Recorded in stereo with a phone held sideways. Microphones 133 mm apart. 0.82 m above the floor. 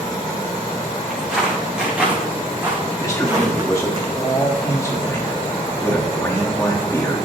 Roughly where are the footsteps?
Centre.